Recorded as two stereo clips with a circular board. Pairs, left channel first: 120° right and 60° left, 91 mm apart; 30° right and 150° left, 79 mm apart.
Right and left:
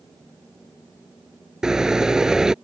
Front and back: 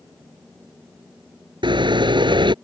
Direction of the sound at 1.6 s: 145° left.